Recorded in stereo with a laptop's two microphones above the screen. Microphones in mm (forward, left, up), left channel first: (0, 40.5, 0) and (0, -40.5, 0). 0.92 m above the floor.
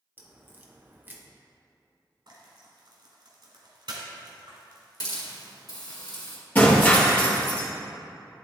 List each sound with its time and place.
0.2 s a crack: 25° right (ahead or behind), 0.7 m
2.3 s frying: 65° right (ahead or behind), 1.7 m
5.0 s a hiss: 50° left (ahead or behind), 1.7 m
6.5 s breaking glass: 20° left (ahead or behind), 1.8 m